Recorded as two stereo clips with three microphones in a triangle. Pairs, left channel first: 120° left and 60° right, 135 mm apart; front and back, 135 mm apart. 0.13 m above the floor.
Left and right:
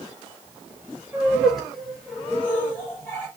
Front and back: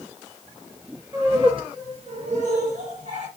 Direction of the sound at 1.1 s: 135° right.